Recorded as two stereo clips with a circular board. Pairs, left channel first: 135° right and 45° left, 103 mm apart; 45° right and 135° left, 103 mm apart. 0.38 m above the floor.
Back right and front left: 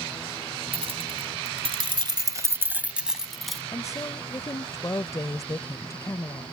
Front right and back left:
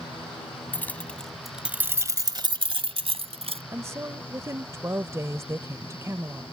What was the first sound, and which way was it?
Keys jangling, 25° left.